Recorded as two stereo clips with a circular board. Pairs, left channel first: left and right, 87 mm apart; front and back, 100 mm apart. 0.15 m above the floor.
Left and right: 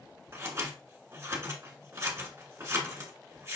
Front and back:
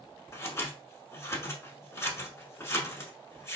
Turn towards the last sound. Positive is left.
turn(degrees=-50)